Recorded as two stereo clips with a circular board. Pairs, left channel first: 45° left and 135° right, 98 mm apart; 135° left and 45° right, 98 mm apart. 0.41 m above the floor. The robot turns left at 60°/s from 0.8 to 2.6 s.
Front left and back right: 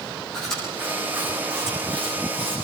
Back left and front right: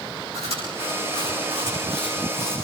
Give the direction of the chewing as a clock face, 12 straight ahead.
1 o'clock.